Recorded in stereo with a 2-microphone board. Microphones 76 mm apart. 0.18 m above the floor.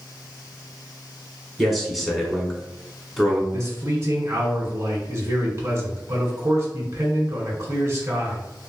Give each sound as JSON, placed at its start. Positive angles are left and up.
{"t": 1.6, "sound": "a man speaking", "side_deg": 0, "distance_m": 1.3}
{"t": 3.5, "sound": "a man speaking", "side_deg": -40, "distance_m": 1.5}